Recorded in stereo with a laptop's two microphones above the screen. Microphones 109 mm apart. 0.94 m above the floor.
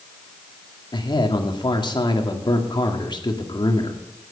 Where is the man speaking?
45° left (ahead or behind), 2 m.